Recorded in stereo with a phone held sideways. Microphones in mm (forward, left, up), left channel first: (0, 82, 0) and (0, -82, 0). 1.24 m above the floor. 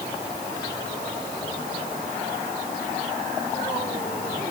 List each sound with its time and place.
Only background noise.